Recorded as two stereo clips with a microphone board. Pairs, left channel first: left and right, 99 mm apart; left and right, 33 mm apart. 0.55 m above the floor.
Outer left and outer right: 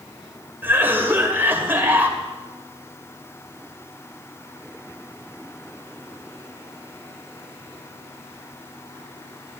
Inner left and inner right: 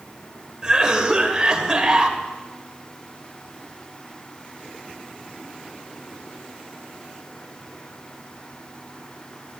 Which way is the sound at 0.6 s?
20° right (ahead or behind).